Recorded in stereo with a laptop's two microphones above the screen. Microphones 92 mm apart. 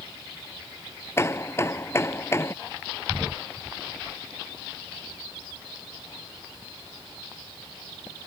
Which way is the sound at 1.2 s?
25° left (ahead or behind).